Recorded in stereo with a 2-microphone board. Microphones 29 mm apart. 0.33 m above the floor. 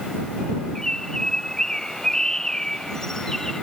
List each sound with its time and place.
0.8 s a bird: 20° left (ahead or behind)